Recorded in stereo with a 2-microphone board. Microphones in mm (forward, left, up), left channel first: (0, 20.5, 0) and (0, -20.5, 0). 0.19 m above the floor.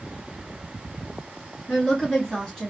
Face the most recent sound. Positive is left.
turn(degrees=20)  # may be behind; listen again after turning